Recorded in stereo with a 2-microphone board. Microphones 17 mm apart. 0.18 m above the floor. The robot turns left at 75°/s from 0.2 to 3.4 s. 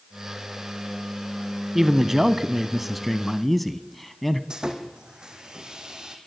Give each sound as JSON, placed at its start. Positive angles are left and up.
{"t": 1.8, "sound": "a man speaking", "side_deg": -25, "distance_m": 1.0}
{"t": 4.5, "sound": "sawing", "side_deg": -55, "distance_m": 3.0}